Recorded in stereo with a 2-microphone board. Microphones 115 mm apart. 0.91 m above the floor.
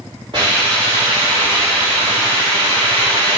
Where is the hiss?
50° right (ahead or behind), 3.5 m.